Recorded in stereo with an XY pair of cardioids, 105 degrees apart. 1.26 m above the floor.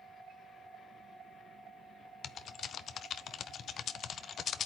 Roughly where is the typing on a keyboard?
Ahead left.